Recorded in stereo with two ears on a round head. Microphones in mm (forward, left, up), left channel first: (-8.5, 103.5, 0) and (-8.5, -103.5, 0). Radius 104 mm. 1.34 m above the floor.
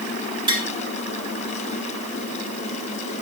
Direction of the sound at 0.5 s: 20° right (ahead or behind).